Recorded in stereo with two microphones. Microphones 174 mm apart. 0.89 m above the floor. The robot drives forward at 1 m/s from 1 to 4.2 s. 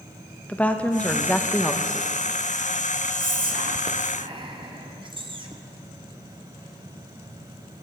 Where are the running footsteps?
I don't hear running footsteps.